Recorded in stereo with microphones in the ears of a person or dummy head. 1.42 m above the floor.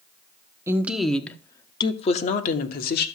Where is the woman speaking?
5° right (ahead or behind), 1.1 m; by 3.1 s 65° left (ahead or behind), 1.4 m.